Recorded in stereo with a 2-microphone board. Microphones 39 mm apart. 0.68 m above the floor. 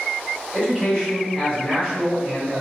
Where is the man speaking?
15° left (ahead or behind), 1.3 m.